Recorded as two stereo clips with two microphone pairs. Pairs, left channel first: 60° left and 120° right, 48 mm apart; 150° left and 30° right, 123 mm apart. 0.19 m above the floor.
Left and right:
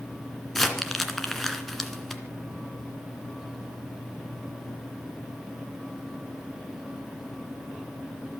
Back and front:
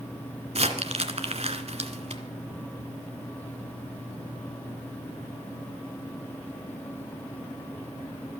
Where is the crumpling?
30° right, 2 m.